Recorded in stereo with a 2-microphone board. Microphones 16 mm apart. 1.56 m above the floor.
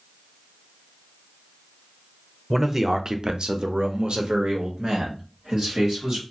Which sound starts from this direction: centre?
A man speaking, at 2.5 s.